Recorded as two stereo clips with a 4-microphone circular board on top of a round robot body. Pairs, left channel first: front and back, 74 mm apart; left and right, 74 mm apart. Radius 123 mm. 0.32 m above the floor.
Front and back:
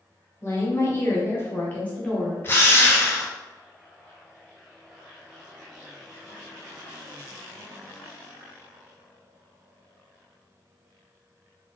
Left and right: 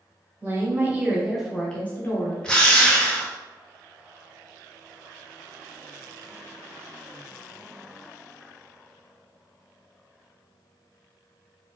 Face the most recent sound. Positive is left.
turn(degrees=25)